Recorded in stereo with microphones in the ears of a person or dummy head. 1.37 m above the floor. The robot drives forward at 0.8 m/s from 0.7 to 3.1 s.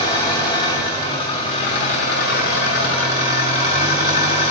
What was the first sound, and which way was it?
An engine running, 20° left (ahead or behind).